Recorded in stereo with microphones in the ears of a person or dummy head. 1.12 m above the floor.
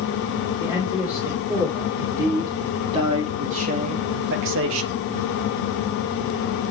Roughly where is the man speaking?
Centre.